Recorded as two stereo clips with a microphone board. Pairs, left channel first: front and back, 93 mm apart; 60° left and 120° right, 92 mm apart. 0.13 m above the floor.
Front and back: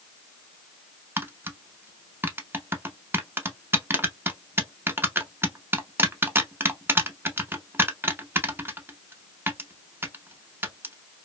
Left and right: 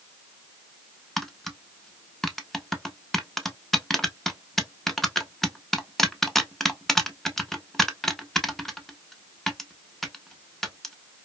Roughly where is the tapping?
Behind left.